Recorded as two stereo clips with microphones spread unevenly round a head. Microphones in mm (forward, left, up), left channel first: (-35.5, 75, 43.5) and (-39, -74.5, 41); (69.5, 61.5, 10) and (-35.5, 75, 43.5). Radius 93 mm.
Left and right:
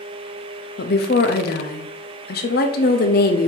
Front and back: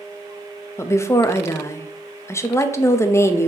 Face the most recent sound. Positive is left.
turn(degrees=60)